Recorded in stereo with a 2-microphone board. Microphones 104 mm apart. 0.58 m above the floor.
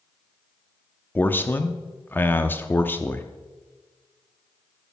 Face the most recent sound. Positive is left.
turn(degrees=20)  # may be behind; listen again after turning